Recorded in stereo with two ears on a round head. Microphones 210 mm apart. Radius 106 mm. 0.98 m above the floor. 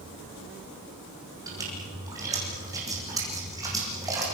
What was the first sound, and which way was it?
A splash, 15° right (ahead or behind).